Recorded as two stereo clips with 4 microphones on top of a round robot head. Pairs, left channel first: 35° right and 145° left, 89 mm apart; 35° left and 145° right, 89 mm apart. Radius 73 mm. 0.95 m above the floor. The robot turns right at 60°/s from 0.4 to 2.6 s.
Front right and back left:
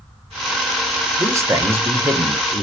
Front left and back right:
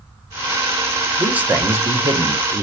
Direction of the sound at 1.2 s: 150° left.